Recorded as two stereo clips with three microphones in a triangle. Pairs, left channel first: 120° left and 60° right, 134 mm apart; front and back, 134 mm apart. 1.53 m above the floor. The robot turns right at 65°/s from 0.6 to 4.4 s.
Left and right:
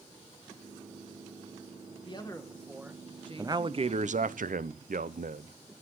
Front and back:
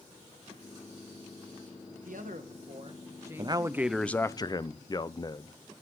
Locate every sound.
2.0 s a man speaking: 170° left, 1.6 m; by 4.2 s 55° right, 1.6 m
3.4 s a man speaking: 125° right, 0.7 m; by 5.5 s 60° right, 0.7 m